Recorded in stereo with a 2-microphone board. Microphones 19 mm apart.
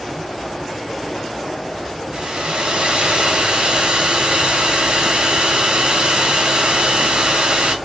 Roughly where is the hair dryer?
Right.